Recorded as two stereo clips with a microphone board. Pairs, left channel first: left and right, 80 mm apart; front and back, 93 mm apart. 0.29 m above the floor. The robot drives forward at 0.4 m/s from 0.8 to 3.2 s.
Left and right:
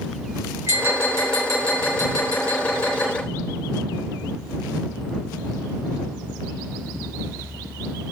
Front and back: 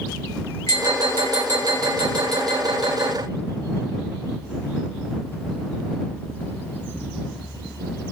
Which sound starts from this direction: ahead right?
Tapping, at 0.7 s.